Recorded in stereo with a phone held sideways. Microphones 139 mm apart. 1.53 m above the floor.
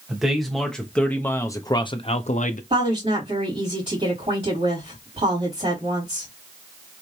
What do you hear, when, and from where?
0.1 s a man speaking: 5° right (ahead or behind), 1.6 m; by 2.6 s 70° left (ahead or behind), 0.7 m
2.7 s a woman speaking: 50° right (ahead or behind), 3 m